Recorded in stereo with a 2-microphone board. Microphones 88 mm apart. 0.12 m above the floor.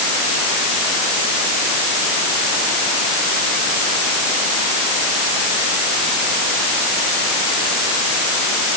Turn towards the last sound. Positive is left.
No sound to turn to.